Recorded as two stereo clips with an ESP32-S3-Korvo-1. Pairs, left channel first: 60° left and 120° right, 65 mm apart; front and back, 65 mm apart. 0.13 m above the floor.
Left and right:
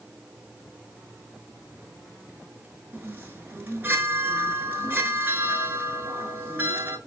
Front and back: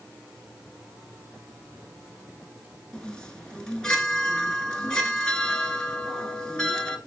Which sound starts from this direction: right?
A chime, at 2.9 s.